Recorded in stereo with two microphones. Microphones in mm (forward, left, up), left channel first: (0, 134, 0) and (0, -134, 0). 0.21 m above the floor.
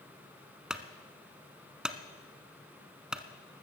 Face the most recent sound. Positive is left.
turn(degrees=0)  # may be behind; listen again after turning